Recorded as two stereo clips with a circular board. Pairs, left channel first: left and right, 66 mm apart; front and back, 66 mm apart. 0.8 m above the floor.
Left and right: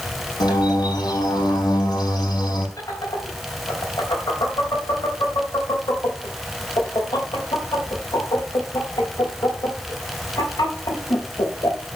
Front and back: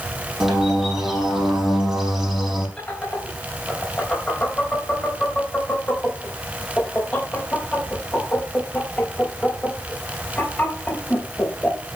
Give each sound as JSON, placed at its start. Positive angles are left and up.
{"t": 0.4, "sound": "a bird", "azimuth_deg": 90, "distance_m": 5.0}
{"t": 2.8, "sound": "laughter", "azimuth_deg": 70, "distance_m": 3.5}